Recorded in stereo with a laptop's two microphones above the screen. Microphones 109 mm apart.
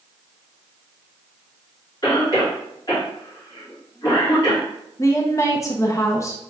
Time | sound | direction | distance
2.0 | a cough | 35° left (ahead or behind) | 2 m
5.0 | a woman speaking | 30° left (ahead or behind) | 0.6 m